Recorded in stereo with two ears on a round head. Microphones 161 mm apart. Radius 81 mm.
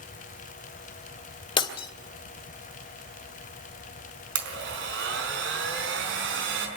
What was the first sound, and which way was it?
Breaking glass, 30° left (ahead or behind).